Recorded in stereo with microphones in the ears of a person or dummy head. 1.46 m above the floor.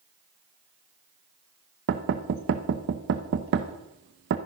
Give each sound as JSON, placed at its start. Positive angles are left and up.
{"t": 1.9, "sound": "knocking", "side_deg": -45, "distance_m": 0.9}